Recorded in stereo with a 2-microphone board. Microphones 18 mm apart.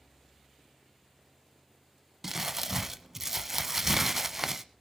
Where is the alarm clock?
I don't hear an alarm clock.